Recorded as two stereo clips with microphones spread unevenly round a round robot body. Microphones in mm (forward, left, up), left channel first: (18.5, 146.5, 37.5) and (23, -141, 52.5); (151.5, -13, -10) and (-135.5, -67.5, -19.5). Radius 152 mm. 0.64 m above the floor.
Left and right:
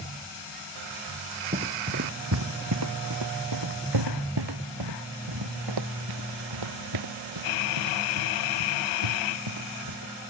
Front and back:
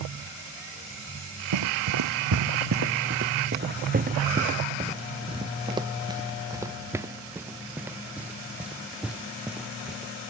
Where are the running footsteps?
155° right; by 10.1 s 80° right.